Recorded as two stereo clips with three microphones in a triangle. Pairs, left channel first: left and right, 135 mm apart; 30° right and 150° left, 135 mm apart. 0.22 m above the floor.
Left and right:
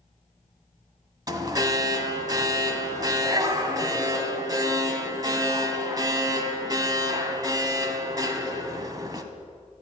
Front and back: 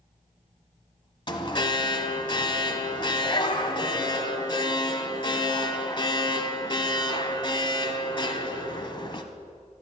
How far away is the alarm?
About 1.2 m.